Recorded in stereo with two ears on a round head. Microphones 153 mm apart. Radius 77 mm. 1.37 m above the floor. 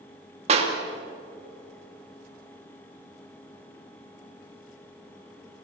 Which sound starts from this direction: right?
A clap, at 0.5 s.